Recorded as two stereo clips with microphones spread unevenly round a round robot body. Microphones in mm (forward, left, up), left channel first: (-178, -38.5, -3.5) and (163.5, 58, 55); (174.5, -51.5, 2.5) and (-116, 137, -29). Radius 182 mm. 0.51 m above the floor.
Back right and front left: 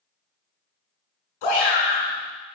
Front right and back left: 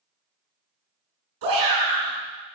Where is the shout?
175° right, 6 m.